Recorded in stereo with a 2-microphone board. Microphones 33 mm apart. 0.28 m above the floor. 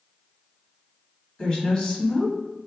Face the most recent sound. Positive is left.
turn(degrees=15)  # may be behind; listen again after turning